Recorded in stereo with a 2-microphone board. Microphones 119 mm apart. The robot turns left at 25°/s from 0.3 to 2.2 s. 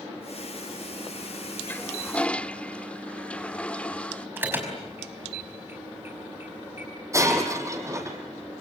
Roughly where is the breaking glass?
Right.